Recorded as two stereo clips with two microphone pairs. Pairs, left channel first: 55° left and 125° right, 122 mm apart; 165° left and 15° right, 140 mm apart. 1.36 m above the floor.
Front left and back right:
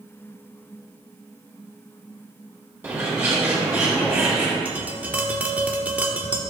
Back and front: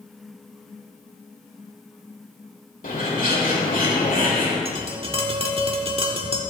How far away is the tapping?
About 1.3 m.